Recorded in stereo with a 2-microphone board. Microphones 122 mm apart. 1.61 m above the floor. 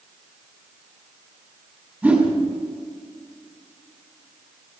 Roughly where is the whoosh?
Centre.